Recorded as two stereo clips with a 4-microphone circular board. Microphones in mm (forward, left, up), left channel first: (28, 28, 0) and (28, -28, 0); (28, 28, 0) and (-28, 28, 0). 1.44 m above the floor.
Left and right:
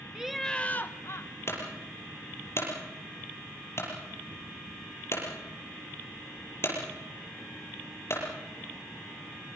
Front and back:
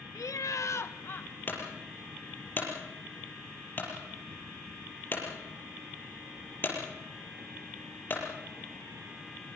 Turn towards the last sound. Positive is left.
turn(degrees=55)